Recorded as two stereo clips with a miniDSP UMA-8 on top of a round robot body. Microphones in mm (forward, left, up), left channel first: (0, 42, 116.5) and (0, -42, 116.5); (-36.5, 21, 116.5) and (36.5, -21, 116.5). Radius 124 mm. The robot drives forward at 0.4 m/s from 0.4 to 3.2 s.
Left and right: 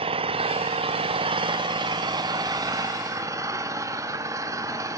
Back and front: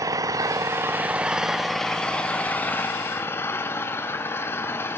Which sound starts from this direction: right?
An engine running, at 0.0 s.